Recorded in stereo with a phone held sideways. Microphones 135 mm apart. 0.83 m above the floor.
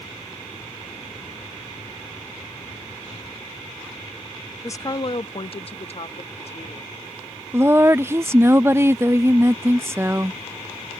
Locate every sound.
4.6 s a woman speaking: 20° left (ahead or behind); by 6.9 s 50° left (ahead or behind)
7.5 s a woman speaking: 20° right (ahead or behind)